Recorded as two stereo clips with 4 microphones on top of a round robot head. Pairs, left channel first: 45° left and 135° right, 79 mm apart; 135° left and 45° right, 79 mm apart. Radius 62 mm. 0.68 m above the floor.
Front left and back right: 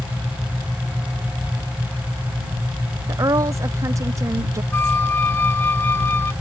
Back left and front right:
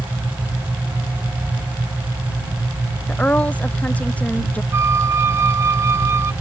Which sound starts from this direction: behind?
A woman speaking, at 3.1 s.